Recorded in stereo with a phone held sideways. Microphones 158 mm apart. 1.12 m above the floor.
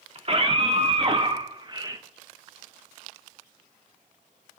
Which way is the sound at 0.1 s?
40° right (ahead or behind).